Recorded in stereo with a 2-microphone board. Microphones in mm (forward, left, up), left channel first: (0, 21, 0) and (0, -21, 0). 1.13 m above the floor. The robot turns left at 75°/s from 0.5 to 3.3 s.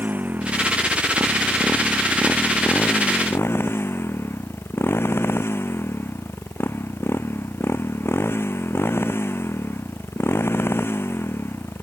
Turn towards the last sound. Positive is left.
turn(degrees=100)